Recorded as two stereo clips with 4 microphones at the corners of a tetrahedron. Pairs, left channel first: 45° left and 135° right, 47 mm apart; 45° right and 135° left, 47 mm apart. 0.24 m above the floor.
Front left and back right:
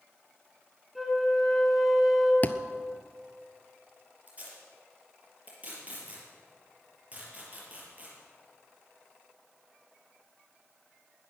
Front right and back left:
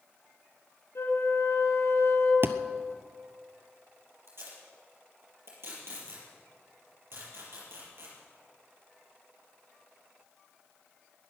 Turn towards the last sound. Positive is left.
turn(degrees=165)